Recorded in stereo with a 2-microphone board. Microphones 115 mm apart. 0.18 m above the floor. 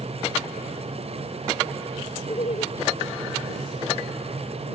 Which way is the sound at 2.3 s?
65° left (ahead or behind).